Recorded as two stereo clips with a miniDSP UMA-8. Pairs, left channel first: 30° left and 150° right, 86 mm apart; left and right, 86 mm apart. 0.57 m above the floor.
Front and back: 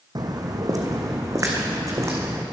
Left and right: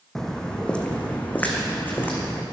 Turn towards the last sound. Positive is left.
turn(degrees=155)